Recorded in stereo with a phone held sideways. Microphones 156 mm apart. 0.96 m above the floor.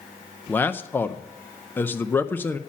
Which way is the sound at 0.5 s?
10° left (ahead or behind).